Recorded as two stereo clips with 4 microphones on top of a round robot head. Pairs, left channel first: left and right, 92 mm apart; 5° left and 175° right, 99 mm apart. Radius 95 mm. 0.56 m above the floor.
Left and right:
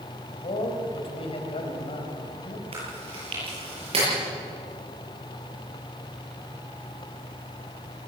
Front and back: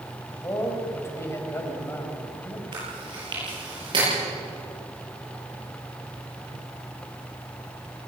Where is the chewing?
120° right, 8 m.